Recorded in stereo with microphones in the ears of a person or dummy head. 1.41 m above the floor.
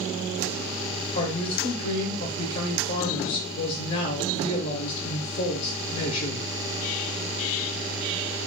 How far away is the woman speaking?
About 0.8 m.